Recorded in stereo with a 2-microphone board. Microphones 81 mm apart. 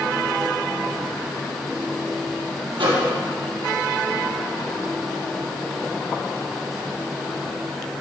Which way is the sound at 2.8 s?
75° right (ahead or behind).